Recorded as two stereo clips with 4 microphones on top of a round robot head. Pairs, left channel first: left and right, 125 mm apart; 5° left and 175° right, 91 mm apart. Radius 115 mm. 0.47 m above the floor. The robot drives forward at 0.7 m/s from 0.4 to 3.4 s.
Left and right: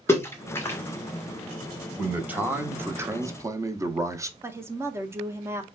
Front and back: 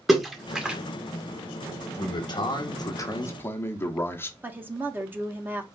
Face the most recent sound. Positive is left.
turn(degrees=-135)